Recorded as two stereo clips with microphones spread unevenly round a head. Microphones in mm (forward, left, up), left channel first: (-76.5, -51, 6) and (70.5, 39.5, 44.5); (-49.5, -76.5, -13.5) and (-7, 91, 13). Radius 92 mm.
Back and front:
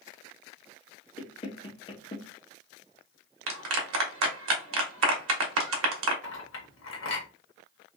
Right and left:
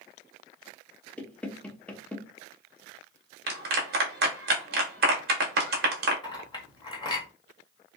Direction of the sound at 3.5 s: 40° left.